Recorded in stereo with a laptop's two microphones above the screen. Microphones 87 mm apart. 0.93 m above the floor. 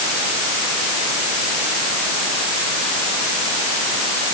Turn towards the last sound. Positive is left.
No sound to turn to.